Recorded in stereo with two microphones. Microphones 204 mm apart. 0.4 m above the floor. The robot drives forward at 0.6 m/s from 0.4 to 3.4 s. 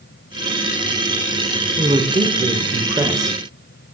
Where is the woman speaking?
25° right (ahead or behind), 0.8 m; by 3.4 s 15° right (ahead or behind), 1.2 m.